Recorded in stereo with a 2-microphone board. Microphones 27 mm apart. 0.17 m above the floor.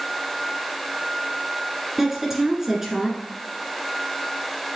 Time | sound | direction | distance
2.0 | a woman speaking | 15° right (ahead or behind) | 1.8 m